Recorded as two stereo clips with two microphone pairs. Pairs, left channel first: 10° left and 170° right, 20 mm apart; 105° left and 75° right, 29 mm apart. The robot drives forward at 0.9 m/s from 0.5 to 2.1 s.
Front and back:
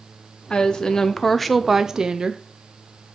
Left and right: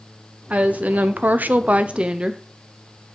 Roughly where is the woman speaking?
Ahead right.